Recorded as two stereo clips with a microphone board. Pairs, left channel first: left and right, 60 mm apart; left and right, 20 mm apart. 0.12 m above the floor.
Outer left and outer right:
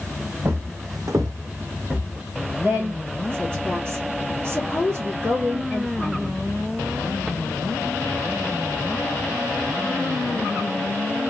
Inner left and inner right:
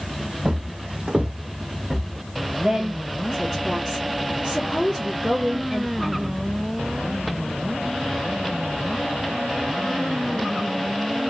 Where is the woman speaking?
35° right (ahead or behind), 1.8 m.